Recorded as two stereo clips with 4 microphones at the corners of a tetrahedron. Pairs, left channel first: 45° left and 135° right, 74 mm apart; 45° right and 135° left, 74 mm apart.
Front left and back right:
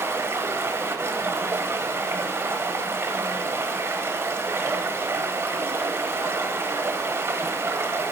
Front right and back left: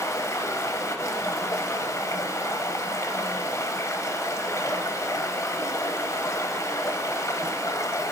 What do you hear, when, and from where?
0.0 s running water: 90° right, 1.1 m